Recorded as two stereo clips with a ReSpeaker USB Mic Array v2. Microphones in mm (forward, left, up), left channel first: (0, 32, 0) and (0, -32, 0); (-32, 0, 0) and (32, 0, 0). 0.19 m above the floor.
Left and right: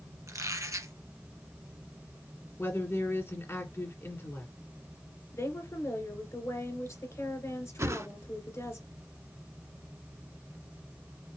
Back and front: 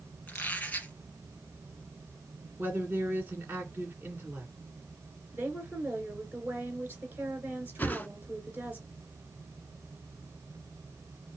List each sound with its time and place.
0.3 s a squeak: 115° right, 2 m
2.6 s a woman speaking: 50° left, 2 m
5.3 s a woman speaking: 55° left, 2.5 m
7.8 s a whoosh: 125° right, 0.5 m